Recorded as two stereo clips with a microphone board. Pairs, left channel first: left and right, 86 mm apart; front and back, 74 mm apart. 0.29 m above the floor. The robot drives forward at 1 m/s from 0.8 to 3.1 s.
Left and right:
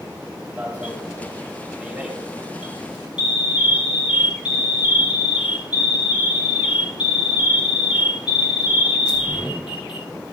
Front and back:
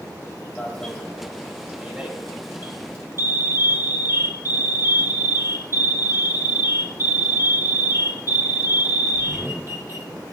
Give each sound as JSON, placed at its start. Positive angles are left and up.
{"t": 0.6, "sound": "an alarm", "azimuth_deg": -50, "distance_m": 1.9}